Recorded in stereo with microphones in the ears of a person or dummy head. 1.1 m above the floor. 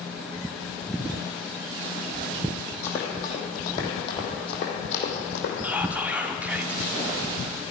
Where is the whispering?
10° right (ahead or behind), 0.5 m.